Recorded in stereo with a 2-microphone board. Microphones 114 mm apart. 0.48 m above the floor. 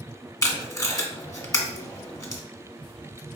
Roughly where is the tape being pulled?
Left.